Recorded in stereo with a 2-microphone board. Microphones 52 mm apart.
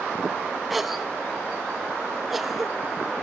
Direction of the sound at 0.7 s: 5° right (ahead or behind).